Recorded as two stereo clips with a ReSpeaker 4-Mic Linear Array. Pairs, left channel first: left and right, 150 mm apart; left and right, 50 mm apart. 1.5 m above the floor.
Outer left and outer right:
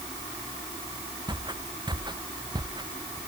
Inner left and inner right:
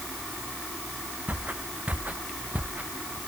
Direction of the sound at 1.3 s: 30° right (ahead or behind).